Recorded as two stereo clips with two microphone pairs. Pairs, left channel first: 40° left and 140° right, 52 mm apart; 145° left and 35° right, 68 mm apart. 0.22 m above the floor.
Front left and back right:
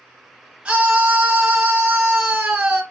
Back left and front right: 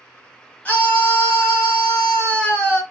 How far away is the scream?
About 1.1 m.